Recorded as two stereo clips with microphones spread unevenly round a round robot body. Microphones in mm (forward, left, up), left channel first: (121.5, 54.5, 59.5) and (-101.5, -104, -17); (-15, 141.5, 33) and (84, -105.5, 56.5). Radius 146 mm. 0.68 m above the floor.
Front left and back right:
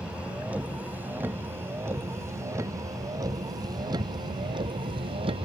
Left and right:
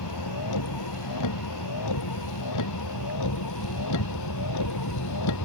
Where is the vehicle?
130° left; by 5.5 s 140° left.